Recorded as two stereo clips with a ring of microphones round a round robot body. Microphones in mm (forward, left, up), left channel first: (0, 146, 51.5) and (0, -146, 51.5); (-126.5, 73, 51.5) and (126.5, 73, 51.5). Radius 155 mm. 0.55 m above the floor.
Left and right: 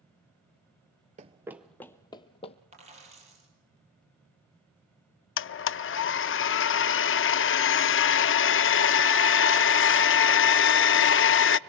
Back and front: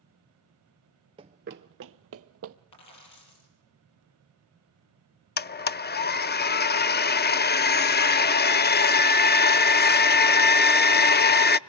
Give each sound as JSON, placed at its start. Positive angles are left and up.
{"t": 1.2, "sound": "running footsteps", "azimuth_deg": -50, "distance_m": 0.5}
{"t": 2.7, "sound": "a dropped coin", "azimuth_deg": -160, "distance_m": 7.5}
{"t": 5.4, "sound": "a blender", "azimuth_deg": 130, "distance_m": 0.5}